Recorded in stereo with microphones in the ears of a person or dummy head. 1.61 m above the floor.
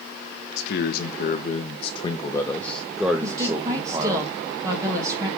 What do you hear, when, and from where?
0.6 s a man speaking: 65° left (ahead or behind), 1.3 m; by 4.2 s 25° right (ahead or behind), 1.5 m
3.2 s a woman speaking: 20° right (ahead or behind), 2 m